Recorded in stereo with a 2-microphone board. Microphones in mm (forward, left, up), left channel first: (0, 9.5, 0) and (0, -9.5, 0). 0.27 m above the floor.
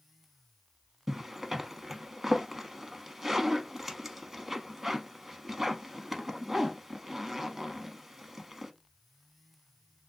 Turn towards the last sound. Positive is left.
turn(degrees=-20)  # may be behind; listen again after turning